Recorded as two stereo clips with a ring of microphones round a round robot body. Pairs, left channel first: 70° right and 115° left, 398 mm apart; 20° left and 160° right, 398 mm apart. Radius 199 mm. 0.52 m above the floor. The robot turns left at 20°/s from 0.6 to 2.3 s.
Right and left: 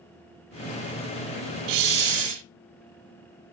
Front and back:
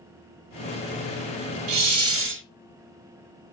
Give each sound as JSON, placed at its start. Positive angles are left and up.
{"t": 1.7, "sound": "a hiss", "azimuth_deg": 155, "distance_m": 0.7}